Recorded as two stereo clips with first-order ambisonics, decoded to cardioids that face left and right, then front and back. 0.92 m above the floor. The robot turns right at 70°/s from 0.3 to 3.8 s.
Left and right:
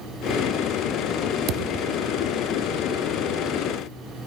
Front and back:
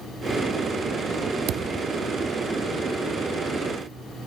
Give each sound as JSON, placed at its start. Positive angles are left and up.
{"t": 1.5, "sound": "a thud", "azimuth_deg": -135, "distance_m": 0.6}